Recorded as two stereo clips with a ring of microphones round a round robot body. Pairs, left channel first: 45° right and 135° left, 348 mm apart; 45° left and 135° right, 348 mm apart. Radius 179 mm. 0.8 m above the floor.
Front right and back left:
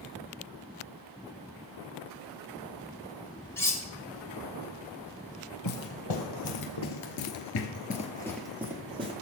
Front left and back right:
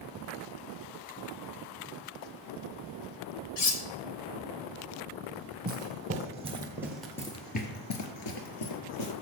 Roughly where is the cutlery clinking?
Ahead left.